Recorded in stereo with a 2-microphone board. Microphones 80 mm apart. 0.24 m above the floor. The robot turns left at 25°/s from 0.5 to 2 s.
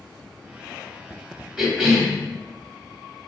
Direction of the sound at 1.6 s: 5° right (ahead or behind).